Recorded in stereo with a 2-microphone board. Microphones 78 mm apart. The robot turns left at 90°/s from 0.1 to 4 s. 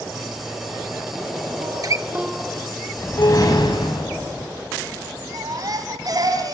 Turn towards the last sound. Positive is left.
turn(degrees=-50)  # may be behind; listen again after turning